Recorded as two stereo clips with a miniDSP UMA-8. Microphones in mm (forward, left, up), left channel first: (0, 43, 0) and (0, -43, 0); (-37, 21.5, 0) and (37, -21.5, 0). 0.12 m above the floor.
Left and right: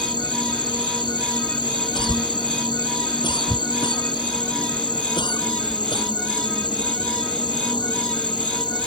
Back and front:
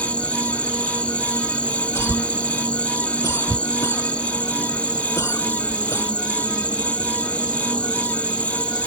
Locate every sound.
0.0 s an insect: 75° left
1.9 s a cough: 95° left